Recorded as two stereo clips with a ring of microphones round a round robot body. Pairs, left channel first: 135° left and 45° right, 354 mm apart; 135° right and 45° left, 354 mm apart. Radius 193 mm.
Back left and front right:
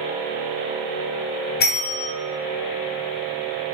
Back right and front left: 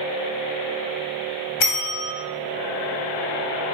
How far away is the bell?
About 2.5 m.